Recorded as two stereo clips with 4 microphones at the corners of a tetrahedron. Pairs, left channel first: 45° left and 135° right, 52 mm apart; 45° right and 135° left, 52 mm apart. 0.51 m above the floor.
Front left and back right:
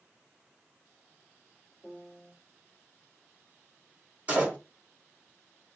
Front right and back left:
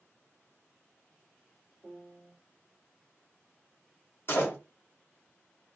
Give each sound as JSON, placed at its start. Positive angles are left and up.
{"t": 1.8, "sound": "a piano", "azimuth_deg": 100, "distance_m": 0.9}
{"t": 4.3, "sound": "a door slam", "azimuth_deg": -80, "distance_m": 1.1}